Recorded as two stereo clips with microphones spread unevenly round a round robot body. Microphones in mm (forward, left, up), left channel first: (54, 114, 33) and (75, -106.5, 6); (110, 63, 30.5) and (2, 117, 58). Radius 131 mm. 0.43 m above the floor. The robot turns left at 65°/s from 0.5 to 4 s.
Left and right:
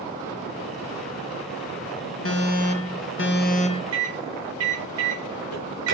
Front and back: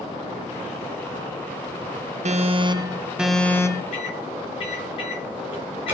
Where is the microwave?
75° right, 7 m; by 6.0 s 80° right, 7 m.